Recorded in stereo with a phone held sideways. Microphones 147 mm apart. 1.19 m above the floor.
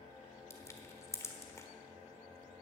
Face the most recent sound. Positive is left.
turn(degrees=20)  # may be behind; listen again after turning